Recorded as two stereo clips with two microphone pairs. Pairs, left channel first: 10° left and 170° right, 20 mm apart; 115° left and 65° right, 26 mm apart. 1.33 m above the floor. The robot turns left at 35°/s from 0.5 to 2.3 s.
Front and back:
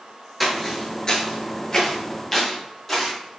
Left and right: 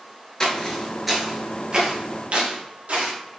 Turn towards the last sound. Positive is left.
turn(degrees=-75)